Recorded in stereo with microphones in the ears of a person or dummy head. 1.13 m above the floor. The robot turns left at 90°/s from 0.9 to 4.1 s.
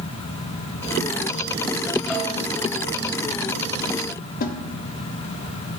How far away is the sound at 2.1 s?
About 2.5 m.